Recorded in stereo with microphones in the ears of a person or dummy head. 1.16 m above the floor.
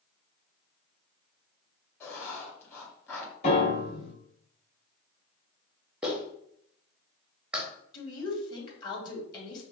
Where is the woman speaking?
25° left (ahead or behind), 2.5 m.